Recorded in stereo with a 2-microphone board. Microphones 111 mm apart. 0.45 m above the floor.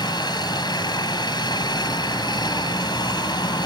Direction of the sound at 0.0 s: 40° left (ahead or behind).